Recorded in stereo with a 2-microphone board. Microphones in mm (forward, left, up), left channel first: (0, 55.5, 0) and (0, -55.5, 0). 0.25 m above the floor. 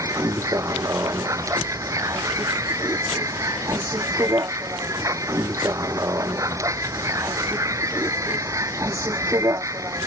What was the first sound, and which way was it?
A vehicle, 30° right (ahead or behind).